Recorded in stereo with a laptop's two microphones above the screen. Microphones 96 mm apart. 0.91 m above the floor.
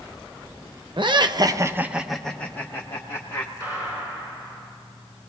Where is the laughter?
55° right (ahead or behind), 0.7 m; by 3.5 s 35° left (ahead or behind), 1.2 m.